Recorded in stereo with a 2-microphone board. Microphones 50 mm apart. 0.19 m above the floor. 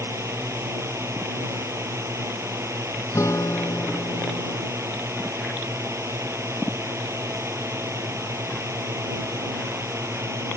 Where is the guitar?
80° left.